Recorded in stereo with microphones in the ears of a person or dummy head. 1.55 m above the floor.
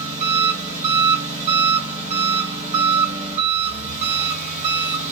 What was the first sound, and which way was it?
An engine running, 40° right (ahead or behind).